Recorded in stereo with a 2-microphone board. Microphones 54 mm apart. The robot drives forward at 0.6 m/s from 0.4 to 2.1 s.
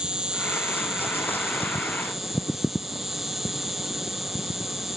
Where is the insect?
15° right (ahead or behind); by 5.0 s 10° right (ahead or behind).